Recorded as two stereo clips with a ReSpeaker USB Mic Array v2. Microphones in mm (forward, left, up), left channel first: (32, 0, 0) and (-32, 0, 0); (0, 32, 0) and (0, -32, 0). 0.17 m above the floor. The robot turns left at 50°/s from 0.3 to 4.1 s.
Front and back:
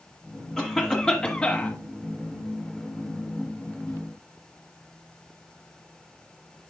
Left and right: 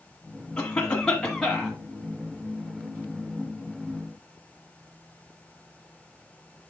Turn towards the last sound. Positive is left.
turn(degrees=-110)